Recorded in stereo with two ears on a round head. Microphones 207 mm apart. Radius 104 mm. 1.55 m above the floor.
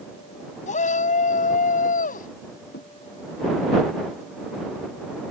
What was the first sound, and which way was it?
A shout, 35° left (ahead or behind).